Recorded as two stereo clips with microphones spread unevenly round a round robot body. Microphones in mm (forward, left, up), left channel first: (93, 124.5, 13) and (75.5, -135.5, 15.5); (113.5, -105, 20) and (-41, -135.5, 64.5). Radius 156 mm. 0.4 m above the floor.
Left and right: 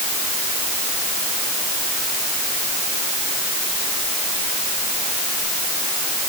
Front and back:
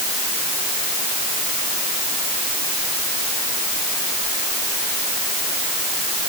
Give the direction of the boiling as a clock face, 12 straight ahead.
No boiling in this recording.